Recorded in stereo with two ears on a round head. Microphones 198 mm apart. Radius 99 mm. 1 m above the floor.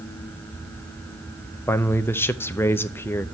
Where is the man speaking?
10° left (ahead or behind), 0.5 m.